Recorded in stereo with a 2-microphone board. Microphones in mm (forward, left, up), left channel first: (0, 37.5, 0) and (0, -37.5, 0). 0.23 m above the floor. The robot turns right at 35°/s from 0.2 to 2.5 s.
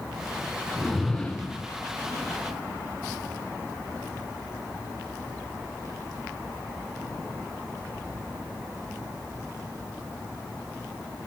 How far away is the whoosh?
About 2 m.